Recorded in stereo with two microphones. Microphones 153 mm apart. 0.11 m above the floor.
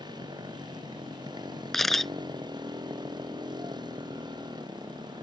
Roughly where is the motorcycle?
Right.